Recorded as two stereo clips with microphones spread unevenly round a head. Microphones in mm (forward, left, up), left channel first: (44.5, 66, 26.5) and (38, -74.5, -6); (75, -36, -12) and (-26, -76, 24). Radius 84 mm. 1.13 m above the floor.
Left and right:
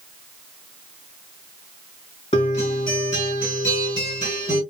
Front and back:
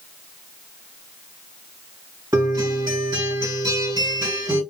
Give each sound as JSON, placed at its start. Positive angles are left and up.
{"t": 2.3, "sound": "a guitar", "azimuth_deg": 140, "distance_m": 1.9}